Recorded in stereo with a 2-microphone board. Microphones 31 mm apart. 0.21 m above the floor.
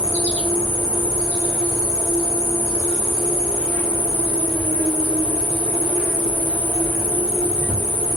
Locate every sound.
0.0 s an insect: 65° left (ahead or behind), 1.5 m